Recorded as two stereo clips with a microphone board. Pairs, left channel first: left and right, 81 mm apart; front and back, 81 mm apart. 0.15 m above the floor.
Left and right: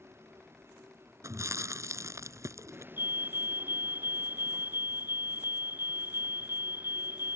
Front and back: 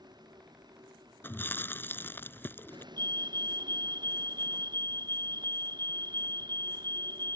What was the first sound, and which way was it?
A vehicle, 150° right.